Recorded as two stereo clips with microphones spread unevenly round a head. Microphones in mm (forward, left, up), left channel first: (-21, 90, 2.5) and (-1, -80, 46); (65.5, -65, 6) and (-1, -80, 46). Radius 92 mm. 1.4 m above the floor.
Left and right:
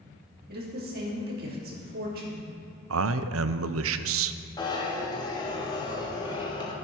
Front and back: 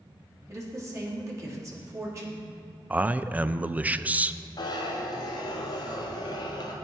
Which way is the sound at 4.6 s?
30° left.